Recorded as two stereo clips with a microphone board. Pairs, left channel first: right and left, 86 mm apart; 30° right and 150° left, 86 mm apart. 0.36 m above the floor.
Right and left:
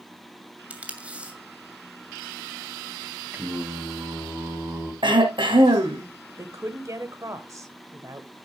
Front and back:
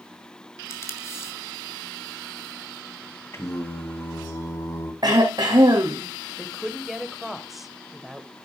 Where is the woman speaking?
65° left, 1.4 m.